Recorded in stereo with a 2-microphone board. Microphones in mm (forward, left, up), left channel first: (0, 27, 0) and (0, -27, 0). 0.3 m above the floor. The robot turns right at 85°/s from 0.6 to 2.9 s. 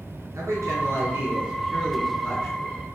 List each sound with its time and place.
0.3 s a man speaking: 95° right, 3 m; by 2.8 s 90° left, 3 m